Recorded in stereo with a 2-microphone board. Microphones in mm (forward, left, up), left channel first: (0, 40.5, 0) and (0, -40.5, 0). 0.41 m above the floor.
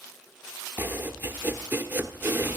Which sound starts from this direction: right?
Chopping, at 0.8 s.